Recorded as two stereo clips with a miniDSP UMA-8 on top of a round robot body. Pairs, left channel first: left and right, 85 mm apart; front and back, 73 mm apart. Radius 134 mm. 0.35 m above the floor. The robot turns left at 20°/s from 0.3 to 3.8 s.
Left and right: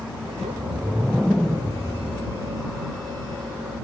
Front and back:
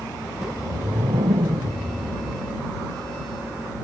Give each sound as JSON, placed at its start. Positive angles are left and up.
{"t": 0.3, "sound": "a whoosh", "azimuth_deg": -160}